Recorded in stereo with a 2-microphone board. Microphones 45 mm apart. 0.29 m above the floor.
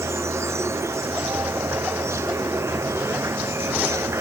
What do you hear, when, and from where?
0.0 s an insect: 75° right (ahead or behind)